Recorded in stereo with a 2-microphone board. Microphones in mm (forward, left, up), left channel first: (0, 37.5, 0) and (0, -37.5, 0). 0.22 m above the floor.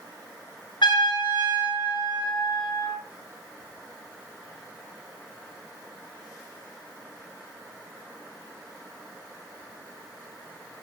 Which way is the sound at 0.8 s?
85° left.